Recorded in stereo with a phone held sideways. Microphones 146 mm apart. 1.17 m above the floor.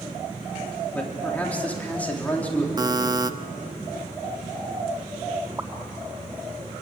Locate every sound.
0.9 s a man speaking: 10° left (ahead or behind), 3.5 m
2.8 s a buzzer: 30° right (ahead or behind), 0.6 m
5.6 s a pop: 25° right (ahead or behind), 2 m